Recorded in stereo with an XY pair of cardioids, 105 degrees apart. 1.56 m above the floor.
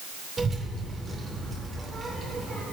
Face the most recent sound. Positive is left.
turn(degrees=-25)